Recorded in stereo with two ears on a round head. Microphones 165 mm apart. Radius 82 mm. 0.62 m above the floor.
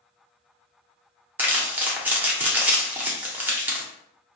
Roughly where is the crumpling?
Centre.